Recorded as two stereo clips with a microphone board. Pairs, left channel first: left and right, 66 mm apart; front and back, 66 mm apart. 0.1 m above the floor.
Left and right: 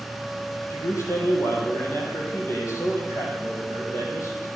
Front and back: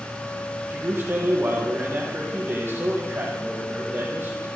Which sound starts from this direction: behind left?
A man speaking, at 0.7 s.